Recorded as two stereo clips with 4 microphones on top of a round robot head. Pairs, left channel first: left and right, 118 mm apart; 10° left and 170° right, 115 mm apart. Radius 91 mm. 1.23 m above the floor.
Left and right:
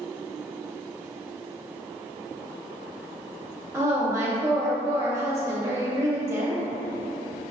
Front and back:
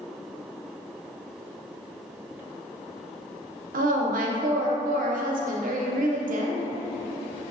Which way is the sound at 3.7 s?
165° right.